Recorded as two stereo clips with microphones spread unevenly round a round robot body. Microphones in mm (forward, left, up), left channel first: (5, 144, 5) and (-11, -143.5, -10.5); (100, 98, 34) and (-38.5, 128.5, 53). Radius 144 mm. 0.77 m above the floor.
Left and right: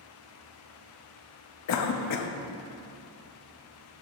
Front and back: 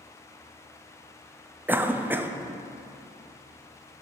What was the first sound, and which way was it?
A cough, 85° left.